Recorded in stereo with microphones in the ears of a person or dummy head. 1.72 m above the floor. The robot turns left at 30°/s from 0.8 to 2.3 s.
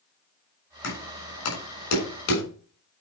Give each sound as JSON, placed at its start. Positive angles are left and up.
{"t": 0.8, "sound": "knocking", "side_deg": 70, "distance_m": 7.0}